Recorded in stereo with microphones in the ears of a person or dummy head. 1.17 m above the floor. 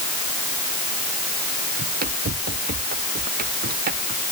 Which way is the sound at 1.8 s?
45° right (ahead or behind).